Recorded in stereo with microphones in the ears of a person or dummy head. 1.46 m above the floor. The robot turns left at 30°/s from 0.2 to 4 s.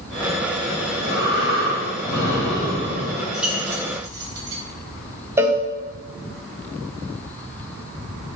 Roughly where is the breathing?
Behind left.